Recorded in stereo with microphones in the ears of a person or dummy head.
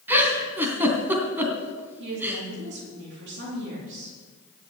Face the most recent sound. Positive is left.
turn(degrees=-65)  # may be behind; listen again after turning